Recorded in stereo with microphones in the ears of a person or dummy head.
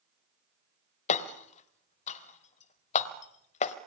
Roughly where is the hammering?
Left.